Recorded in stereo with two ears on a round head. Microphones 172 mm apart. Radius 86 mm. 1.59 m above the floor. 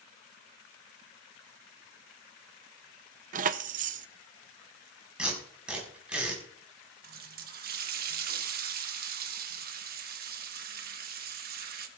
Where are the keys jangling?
45° right (ahead or behind), 0.6 m.